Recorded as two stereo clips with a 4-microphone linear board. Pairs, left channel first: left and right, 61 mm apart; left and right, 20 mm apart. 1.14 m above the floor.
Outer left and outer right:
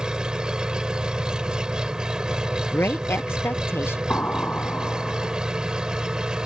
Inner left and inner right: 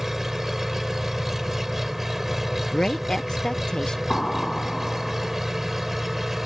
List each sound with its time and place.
0.0 s an engine running: 15° right (ahead or behind)
2.7 s a woman speaking: 40° left (ahead or behind)
4.1 s an explosion: 25° left (ahead or behind)